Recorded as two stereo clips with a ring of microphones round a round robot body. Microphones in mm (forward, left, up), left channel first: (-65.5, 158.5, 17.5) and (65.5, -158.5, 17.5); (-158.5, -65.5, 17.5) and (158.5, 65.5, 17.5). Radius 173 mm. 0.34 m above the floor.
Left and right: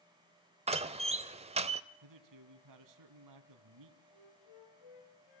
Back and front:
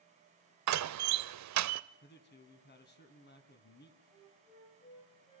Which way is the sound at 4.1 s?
125° left.